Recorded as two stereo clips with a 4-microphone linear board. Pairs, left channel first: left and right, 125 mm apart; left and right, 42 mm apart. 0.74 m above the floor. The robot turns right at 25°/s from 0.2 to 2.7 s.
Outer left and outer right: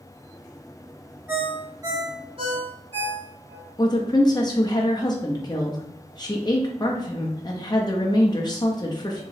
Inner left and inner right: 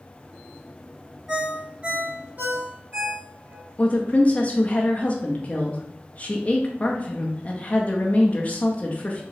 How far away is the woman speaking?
About 0.5 m.